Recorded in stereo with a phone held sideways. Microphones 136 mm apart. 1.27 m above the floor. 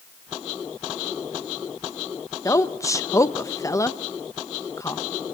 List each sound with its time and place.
2.5 s a woman speaking: 25° left (ahead or behind), 0.8 m